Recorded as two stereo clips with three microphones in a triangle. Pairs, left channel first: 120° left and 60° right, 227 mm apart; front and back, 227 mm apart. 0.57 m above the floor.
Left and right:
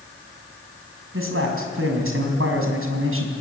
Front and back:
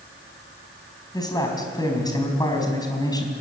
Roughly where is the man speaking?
Right.